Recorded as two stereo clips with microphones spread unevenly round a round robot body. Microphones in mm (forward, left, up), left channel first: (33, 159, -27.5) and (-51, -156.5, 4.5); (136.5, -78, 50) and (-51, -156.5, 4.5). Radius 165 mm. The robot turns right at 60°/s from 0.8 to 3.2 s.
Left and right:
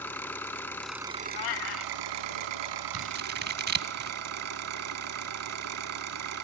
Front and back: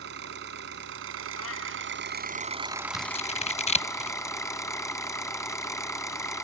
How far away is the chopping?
No chopping in this recording.